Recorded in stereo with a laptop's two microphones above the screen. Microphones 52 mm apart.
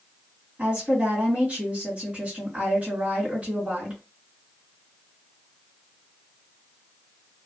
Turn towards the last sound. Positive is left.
turn(degrees=-25)  # may be behind; listen again after turning